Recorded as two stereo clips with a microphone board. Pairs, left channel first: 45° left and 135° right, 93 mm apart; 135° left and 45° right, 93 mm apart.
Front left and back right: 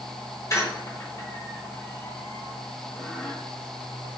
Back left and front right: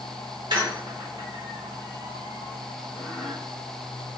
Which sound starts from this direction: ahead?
A squeak, at 0.5 s.